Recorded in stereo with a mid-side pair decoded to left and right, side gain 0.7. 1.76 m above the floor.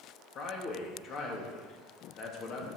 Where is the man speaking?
45° left, 3 m.